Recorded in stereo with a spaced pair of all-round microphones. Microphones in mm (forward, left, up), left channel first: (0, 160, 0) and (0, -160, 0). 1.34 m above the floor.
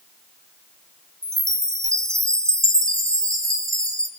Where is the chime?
10° right (ahead or behind), 3.5 m.